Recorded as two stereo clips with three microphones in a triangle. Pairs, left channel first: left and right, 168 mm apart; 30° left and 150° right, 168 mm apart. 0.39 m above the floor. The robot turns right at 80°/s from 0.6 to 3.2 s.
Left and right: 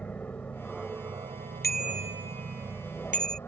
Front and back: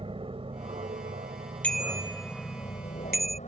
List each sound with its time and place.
0.0 s an aircraft: 170° left; by 3.5 s 20° left
1.6 s a bicycle bell: 110° left; by 3.4 s 125° right